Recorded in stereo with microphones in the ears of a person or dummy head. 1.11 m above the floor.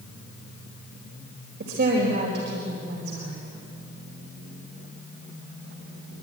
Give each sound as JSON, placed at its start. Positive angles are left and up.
{"t": 1.6, "sound": "a woman speaking", "side_deg": -70, "distance_m": 4.5}